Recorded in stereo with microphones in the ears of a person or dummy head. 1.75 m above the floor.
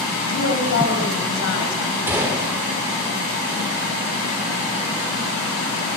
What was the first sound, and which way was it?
A woman speaking, 65° left (ahead or behind).